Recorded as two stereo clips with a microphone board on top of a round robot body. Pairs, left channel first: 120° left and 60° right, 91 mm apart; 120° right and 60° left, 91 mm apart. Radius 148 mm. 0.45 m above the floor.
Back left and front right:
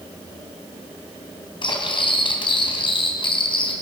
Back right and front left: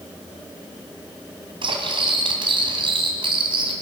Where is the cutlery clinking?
90° left, 2.5 m.